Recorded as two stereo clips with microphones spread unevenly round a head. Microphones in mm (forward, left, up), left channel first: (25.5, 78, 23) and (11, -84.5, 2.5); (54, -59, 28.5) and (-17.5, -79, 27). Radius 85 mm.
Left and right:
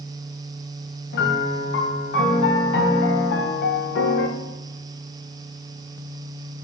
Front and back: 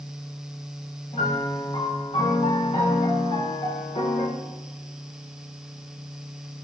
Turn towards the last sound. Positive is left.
turn(degrees=65)